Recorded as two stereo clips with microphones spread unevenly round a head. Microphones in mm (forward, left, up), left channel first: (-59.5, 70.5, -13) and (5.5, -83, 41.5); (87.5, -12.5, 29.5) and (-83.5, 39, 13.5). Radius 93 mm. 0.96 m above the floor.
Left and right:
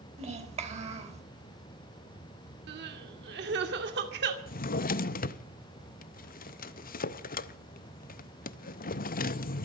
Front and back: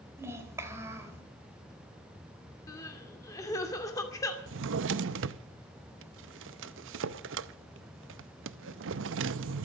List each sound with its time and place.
0.2 s a child speaking: 120° right, 3.5 m
2.7 s crying: 90° right, 2.5 m
4.5 s a drawer: 150° left, 0.7 m